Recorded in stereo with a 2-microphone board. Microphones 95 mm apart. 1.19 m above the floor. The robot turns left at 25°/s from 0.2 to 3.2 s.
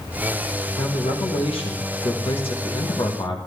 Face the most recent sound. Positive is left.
turn(degrees=60)